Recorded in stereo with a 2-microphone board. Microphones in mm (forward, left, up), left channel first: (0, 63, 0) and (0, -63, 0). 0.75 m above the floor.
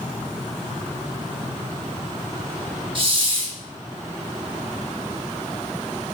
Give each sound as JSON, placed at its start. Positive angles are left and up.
{"t": 3.0, "sound": "a hiss", "side_deg": -40, "distance_m": 0.8}